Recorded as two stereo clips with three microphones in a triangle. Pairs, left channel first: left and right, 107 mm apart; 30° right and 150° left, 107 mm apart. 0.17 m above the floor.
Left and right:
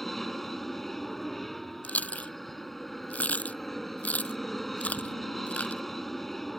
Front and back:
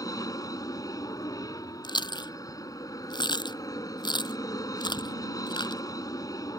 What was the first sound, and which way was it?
An aircraft, straight ahead.